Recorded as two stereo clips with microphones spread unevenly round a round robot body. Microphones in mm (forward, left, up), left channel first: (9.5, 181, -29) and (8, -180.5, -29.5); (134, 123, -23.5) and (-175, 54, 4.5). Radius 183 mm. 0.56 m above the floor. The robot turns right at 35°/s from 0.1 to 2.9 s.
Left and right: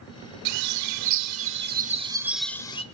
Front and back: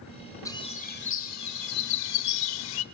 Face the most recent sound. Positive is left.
turn(degrees=15)